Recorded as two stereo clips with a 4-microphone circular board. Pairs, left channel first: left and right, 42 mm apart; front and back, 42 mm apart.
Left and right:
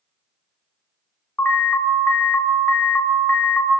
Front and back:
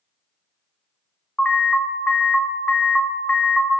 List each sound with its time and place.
1.4 s an alarm: 70° left, 1.0 m